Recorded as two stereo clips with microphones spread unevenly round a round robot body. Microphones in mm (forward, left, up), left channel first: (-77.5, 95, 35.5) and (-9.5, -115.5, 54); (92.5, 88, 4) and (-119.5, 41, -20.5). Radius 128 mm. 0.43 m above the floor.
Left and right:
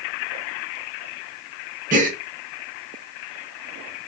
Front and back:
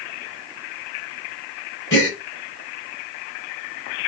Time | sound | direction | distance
1.9 | a gasp | 20° right | 0.9 m